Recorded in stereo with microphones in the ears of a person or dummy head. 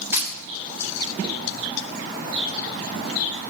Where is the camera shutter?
10° right (ahead or behind), 3 m.